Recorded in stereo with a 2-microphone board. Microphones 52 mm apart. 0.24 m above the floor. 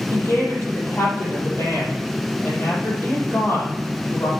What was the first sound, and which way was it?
A woman speaking, 45° left (ahead or behind).